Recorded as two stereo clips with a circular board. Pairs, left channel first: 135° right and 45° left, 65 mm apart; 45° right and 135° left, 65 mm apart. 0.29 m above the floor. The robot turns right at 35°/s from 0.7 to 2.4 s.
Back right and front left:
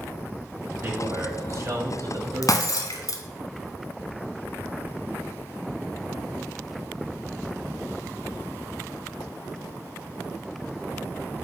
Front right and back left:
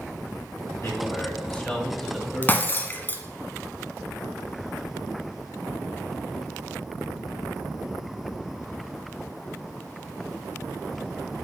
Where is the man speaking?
15° right, 1.6 m; by 3.1 s 40° left, 1.6 m.